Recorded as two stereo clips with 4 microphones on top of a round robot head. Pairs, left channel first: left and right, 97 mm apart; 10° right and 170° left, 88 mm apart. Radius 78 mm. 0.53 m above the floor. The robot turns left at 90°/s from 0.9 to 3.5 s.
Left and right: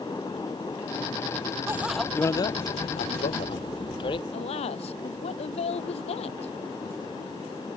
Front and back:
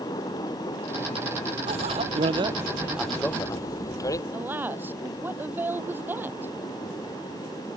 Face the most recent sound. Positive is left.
turn(degrees=105)